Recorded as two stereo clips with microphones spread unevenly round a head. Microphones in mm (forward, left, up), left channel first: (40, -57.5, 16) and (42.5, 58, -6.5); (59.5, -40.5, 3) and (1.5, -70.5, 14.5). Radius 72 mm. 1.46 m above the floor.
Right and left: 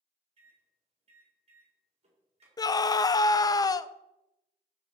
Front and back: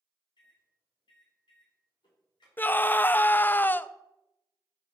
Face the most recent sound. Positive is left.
turn(degrees=-35)